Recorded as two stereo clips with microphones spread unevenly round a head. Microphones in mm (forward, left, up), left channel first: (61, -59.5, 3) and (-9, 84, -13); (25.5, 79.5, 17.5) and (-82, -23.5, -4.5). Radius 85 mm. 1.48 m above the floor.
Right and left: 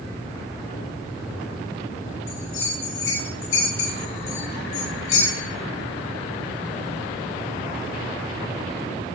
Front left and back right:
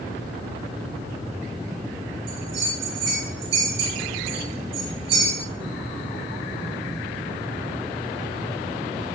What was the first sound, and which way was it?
A bell, 120° right.